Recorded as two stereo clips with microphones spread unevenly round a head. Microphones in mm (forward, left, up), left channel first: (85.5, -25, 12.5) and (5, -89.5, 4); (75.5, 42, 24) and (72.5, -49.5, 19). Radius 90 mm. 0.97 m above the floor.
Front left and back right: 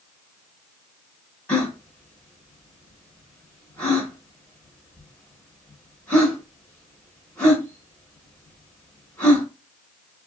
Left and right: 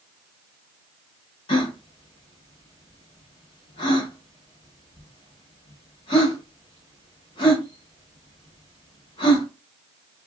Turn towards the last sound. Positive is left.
turn(degrees=115)